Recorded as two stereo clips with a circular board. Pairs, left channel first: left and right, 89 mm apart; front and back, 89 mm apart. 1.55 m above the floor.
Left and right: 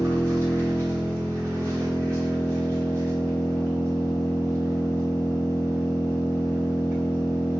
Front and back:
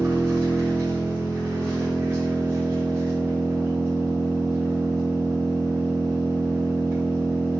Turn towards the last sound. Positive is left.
turn(degrees=-125)